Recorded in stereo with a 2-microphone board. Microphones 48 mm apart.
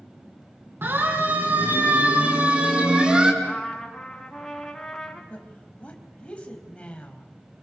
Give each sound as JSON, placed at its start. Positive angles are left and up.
{"t": 0.8, "sound": "a siren", "side_deg": -50, "distance_m": 6.5}
{"t": 3.4, "sound": "a trumpet", "side_deg": 10, "distance_m": 5.0}
{"t": 5.3, "sound": "a woman speaking", "side_deg": 25, "distance_m": 4.0}